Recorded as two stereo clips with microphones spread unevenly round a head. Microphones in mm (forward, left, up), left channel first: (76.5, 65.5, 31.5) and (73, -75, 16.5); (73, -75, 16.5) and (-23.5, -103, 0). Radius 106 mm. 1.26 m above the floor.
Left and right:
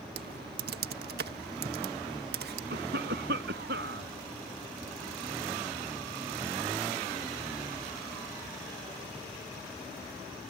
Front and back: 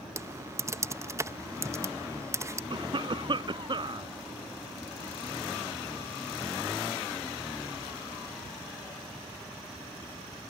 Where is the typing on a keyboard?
100° right.